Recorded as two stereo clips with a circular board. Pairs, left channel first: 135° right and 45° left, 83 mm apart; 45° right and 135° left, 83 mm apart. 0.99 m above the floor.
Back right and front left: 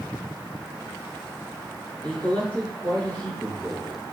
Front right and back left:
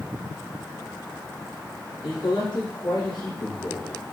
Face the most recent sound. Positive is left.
turn(degrees=-60)